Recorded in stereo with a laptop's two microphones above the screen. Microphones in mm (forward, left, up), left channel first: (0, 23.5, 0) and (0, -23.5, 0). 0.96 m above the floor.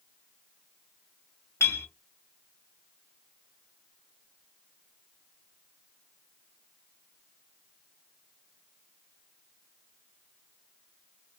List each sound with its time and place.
1.6 s a clink: 60° left (ahead or behind), 1.2 m